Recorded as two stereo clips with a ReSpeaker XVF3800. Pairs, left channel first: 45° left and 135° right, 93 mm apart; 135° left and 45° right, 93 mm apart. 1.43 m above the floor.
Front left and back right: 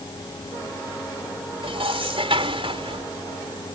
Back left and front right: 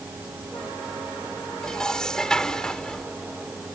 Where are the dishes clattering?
140° right.